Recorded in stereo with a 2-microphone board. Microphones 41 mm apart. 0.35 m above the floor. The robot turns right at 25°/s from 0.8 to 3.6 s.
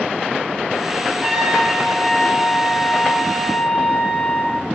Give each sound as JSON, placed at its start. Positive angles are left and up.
{"t": 1.2, "sound": "a trumpet", "azimuth_deg": -20, "distance_m": 4.5}